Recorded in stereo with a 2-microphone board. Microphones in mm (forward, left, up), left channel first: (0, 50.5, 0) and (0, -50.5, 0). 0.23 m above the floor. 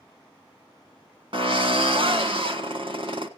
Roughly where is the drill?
Right.